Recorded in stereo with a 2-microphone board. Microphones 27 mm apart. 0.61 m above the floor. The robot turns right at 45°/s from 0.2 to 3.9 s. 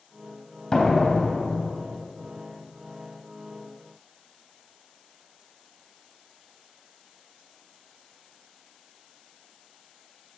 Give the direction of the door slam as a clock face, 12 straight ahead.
11 o'clock.